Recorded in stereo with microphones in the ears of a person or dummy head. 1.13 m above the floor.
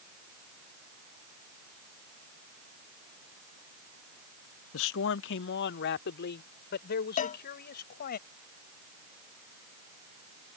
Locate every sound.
4.7 s a man speaking: 70° left (ahead or behind); by 8.2 s 50° left (ahead or behind)
7.2 s a cowbell: 40° left (ahead or behind)